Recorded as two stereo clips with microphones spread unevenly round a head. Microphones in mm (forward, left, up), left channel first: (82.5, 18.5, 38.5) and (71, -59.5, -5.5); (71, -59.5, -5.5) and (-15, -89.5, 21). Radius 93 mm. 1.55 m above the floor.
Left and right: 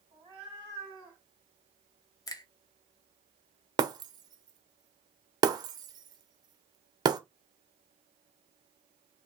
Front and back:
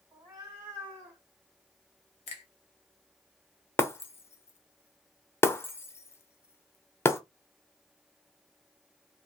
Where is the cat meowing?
170° right, 1.7 m; by 1.2 s 160° left, 1.6 m.